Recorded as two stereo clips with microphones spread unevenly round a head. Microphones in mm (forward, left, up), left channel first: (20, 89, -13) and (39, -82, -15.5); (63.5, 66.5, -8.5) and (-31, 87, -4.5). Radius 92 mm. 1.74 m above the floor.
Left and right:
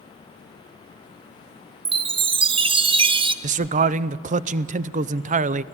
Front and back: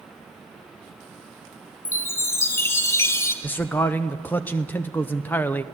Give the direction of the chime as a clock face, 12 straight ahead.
2 o'clock.